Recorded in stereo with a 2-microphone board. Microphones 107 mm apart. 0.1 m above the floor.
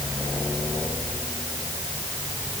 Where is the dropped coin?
No dropped coin in this recording.